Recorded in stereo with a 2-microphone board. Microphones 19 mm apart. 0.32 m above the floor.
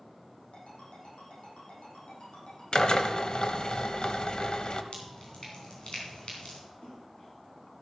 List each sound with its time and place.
0.5 s a ringtone: 80° left, 7 m
2.7 s a drill: 45° left (ahead or behind), 1.0 m
4.9 s dripping: 55° left (ahead or behind), 3.5 m
6.8 s a splash: 80° left, 5.5 m